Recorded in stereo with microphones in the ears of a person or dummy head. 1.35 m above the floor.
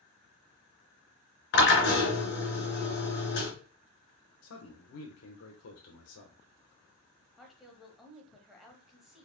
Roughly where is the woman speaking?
Centre.